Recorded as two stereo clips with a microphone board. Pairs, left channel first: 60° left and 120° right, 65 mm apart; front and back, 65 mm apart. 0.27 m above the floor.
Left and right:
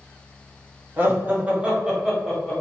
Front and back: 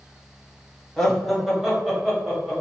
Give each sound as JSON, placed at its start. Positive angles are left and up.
{"t": 1.0, "sound": "laughter", "azimuth_deg": -85, "distance_m": 1.4}